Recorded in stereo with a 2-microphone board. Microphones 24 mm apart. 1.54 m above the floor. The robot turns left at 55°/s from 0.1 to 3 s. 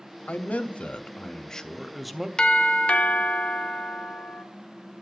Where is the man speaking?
95° left, 0.7 m; by 2.3 s 15° right, 0.7 m.